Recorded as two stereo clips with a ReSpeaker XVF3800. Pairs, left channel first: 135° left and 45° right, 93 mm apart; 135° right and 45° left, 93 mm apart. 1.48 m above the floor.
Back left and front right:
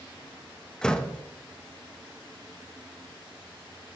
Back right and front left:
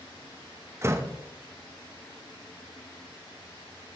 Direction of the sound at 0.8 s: 60° left.